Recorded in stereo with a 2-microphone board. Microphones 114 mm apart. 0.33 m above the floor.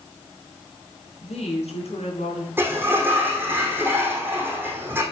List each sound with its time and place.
1.2 s a woman speaking: 70° left (ahead or behind), 4.5 m
2.6 s a sliding door: 20° right (ahead or behind), 3 m